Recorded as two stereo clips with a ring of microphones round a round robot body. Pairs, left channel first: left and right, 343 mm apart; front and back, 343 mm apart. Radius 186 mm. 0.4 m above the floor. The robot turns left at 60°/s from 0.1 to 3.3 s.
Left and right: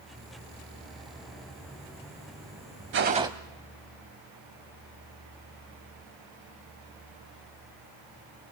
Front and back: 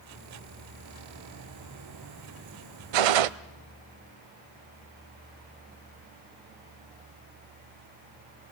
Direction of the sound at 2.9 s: 150° right.